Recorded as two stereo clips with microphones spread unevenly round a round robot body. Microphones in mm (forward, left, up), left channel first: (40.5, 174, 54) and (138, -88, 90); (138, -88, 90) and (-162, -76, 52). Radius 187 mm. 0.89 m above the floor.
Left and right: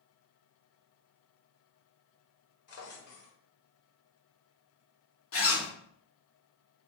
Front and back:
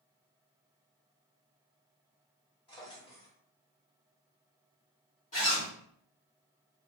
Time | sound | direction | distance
2.7 | a drawer | 75° left | 1.2 m
5.3 | a zipper | 65° left | 1.3 m